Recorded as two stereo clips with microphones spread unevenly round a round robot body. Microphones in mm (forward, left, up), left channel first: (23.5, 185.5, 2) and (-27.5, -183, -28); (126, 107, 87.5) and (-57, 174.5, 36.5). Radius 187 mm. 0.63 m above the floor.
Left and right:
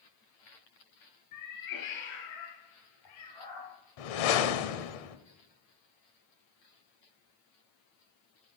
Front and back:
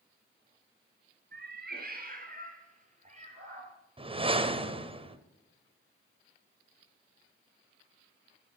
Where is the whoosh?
95° left, 1.0 m.